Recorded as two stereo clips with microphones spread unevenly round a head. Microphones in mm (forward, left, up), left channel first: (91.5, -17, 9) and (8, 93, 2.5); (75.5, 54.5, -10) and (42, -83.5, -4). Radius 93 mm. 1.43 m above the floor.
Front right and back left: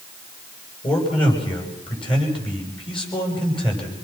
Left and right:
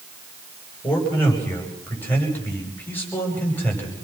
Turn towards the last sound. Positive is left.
turn(degrees=0)